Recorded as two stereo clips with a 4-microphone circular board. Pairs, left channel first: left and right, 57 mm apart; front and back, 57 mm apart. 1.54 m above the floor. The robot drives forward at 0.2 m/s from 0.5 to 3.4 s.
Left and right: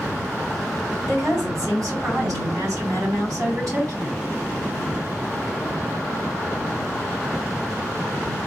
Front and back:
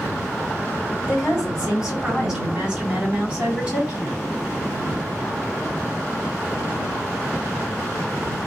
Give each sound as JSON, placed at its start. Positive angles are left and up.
{"t": 1.1, "sound": "a woman speaking", "azimuth_deg": -100, "distance_m": 3.5}